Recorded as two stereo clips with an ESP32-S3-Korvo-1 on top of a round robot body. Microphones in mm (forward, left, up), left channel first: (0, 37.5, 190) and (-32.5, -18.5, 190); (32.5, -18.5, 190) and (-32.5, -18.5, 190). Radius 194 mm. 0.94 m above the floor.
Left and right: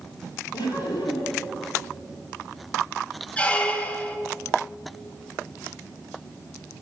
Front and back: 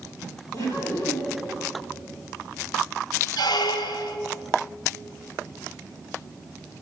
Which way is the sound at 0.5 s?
35° left.